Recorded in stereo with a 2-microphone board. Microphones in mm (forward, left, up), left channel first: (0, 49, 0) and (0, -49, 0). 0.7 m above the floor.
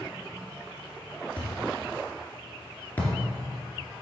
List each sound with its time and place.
1.4 s a thud: 20° left (ahead or behind), 2 m